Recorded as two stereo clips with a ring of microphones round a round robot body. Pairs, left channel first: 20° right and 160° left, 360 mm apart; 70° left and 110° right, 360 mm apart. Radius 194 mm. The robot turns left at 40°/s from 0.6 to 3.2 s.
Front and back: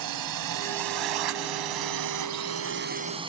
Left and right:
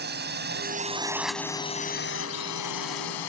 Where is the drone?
175° right; by 3.3 s 80° left.